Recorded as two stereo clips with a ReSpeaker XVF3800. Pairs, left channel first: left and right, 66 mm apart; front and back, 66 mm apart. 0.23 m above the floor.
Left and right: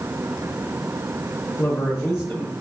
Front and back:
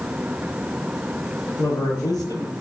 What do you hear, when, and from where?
1.6 s a man speaking: 5° left, 4.5 m; by 2.6 s 15° right, 4 m